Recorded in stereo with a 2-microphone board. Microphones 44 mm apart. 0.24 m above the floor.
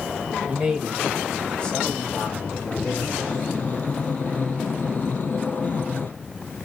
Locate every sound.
0.5 s a man speaking: 15° right (ahead or behind), 1.0 m; by 3.0 s 50° left (ahead or behind), 1.4 m
3.1 s breathing: 40° left (ahead or behind), 0.8 m